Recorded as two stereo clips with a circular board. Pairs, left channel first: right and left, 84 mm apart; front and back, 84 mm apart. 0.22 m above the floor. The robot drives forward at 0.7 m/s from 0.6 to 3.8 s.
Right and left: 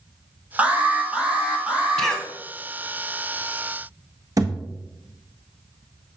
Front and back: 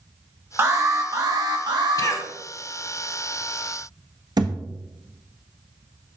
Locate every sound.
0.6 s an alarm: 155° left, 1.4 m; by 2.2 s 170° left, 2 m
2.0 s a cough: 10° right, 1.4 m; by 2.3 s 15° right, 1.3 m
4.4 s a thud: 140° left, 1.1 m